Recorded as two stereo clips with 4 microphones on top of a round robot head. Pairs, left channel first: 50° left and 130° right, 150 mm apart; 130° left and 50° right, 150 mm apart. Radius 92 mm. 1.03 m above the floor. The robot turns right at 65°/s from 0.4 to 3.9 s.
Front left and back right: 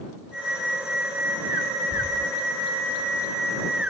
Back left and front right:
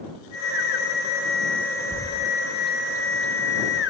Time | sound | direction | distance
1.9 | a bird | 10° right | ?